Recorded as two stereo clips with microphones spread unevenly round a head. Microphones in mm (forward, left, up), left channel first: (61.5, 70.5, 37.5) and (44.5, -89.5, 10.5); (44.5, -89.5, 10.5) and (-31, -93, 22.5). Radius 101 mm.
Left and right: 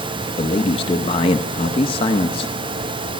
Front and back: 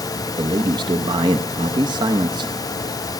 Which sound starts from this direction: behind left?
A man speaking, at 0.4 s.